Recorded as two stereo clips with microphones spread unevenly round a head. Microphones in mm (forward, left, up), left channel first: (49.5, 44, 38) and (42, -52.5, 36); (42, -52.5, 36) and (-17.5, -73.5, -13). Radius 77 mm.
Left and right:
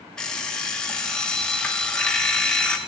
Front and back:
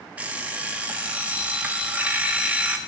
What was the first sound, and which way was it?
An alarm clock, 15° left.